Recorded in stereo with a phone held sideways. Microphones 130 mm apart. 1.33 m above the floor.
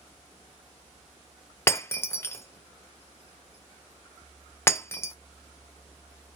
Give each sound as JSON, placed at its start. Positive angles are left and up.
{"t": 1.7, "sound": "breaking glass", "side_deg": 20, "distance_m": 0.5}